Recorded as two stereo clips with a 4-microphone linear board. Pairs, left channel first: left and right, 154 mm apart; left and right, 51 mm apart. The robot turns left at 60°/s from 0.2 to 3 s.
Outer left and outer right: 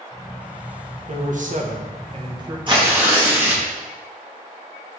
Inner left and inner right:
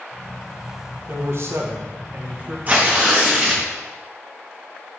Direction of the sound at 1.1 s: 65° right.